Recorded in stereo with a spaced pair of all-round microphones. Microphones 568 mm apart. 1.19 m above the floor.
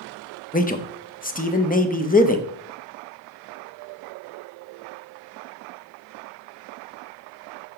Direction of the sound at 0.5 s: 15° left (ahead or behind).